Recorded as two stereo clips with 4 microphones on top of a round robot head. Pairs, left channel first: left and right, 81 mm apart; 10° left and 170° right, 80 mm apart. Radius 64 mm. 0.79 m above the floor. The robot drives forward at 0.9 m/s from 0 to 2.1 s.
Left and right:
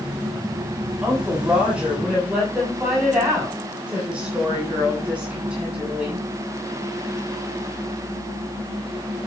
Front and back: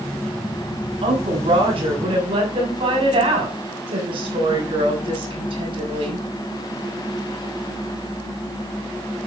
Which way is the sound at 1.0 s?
170° right.